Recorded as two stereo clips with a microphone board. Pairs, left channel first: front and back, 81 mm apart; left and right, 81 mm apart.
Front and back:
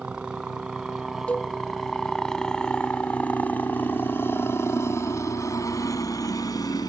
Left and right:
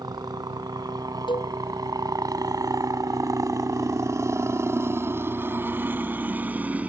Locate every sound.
0.0 s a helicopter: 105° right; by 6.9 s 20° right
1.3 s a cowbell: 75° left